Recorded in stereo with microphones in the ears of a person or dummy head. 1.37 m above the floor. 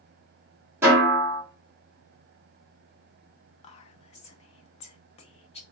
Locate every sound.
0.8 s a snare drum: 15° right (ahead or behind), 2 m
3.6 s whispering: 40° left (ahead or behind), 0.6 m